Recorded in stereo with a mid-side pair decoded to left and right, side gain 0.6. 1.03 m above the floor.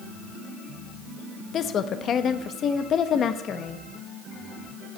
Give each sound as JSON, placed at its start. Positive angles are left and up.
{"t": 1.5, "sound": "a woman speaking", "azimuth_deg": 45, "distance_m": 0.8}